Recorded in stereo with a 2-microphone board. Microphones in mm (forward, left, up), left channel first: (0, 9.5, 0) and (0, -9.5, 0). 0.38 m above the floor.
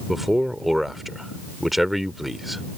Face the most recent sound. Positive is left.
turn(degrees=-10)  # may be behind; listen again after turning